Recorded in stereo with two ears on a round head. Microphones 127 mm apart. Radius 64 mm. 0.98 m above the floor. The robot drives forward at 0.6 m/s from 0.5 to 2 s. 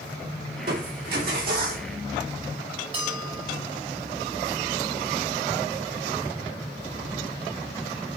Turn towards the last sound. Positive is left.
turn(degrees=-45)  # may be behind; listen again after turning